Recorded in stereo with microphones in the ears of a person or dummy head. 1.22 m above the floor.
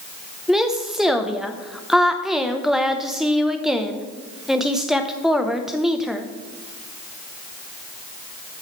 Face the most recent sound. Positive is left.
turn(degrees=5)  # may be behind; listen again after turning